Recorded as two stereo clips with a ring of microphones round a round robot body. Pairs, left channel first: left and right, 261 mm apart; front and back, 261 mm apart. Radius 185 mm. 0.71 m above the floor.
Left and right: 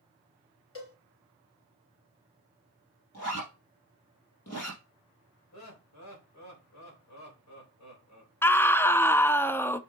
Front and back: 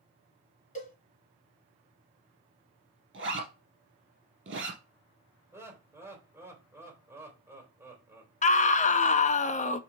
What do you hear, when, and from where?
0.8 s a cowbell: 60° left, 4 m
3.1 s a zipper: 140° left, 3 m
5.5 s laughter: 100° left, 3.5 m
8.4 s a scream: 15° left, 0.6 m